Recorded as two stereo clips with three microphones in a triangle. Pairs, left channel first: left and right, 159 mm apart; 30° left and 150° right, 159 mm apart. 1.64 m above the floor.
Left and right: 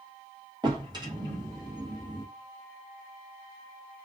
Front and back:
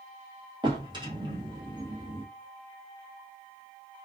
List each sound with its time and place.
0.6 s a drawer: 125° right, 0.8 m